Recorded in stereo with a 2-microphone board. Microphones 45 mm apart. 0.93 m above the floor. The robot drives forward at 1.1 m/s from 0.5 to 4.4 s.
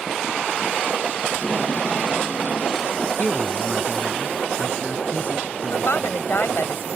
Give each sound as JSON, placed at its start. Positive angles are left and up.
{"t": 1.3, "sound": "tape being pulled", "side_deg": 45}
{"t": 3.2, "sound": "a man speaking", "side_deg": 40}
{"t": 5.7, "sound": "a woman speaking", "side_deg": 70}